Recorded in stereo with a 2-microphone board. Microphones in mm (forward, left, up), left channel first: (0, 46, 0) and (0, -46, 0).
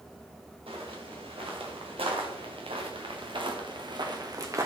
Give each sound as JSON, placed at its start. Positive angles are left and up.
{"t": 0.7, "sound": "footsteps", "side_deg": -85, "distance_m": 3.5}